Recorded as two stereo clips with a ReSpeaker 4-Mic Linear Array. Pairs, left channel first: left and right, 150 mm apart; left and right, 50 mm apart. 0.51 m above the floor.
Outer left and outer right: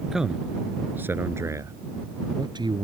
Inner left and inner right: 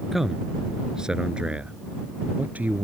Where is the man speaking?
5° right (ahead or behind); by 2.9 s 30° right (ahead or behind).